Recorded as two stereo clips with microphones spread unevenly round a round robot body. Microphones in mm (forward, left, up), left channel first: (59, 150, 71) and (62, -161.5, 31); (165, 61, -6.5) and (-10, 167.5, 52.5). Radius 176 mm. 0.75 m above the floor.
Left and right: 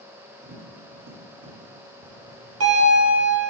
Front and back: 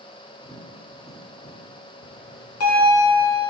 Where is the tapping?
105° right, 1.7 m.